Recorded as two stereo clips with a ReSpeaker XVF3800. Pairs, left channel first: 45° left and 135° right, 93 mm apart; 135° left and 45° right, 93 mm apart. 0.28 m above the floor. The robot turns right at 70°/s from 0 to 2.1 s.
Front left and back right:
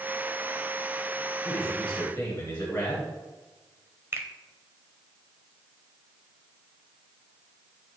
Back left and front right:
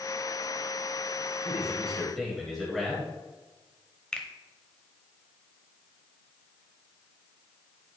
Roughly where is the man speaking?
Ahead.